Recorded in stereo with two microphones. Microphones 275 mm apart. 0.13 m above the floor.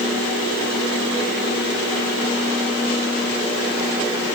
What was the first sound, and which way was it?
Only background noise.